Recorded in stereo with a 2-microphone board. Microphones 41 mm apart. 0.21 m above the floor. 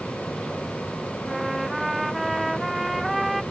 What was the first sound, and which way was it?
A trumpet, centre (ahead or behind).